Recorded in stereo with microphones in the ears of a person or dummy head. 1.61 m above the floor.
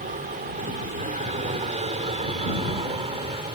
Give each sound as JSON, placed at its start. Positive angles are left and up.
{"t": 0.0, "sound": "an aircraft", "side_deg": -40}